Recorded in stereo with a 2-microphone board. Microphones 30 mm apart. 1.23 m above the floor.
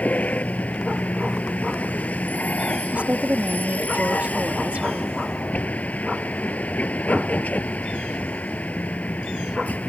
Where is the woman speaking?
65° right (ahead or behind).